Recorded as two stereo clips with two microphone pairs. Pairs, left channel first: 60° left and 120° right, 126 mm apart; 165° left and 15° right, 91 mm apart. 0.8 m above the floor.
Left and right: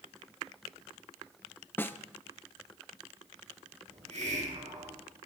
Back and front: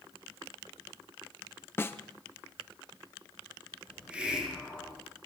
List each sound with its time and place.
1.8 s a snare drum: 120° left, 0.7 m
3.9 s a hiss: 95° right, 5 m